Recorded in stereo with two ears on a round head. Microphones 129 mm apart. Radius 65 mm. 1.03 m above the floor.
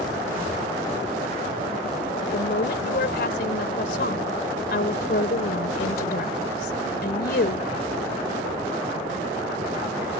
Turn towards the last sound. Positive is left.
turn(degrees=80)